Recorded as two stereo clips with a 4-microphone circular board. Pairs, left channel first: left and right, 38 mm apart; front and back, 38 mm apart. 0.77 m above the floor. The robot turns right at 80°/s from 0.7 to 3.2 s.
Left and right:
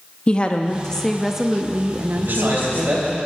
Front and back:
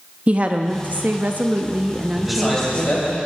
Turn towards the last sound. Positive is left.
turn(degrees=-30)